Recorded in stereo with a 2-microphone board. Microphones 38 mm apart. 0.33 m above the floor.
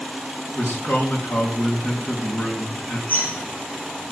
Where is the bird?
55° left (ahead or behind), 7.5 m.